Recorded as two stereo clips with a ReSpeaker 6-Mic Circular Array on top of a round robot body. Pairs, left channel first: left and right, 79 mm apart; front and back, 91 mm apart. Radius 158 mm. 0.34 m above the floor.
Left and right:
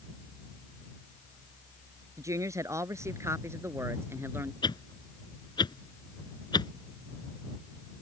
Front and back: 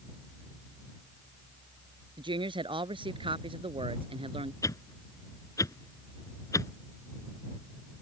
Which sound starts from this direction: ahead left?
A whoosh, at 4.6 s.